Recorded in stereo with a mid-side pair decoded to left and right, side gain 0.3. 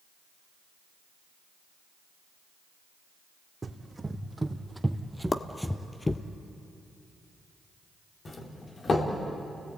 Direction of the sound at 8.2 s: 55° left.